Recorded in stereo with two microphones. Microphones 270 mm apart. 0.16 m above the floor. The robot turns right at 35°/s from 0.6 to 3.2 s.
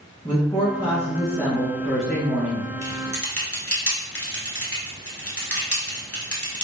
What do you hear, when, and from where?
0.2 s a woman speaking: 15° left (ahead or behind), 1.2 m; by 2.7 s 5° right (ahead or behind), 1.2 m
2.8 s typing on a keyboard: 60° left (ahead or behind), 1.1 m; by 6.6 s 55° left (ahead or behind), 1.1 m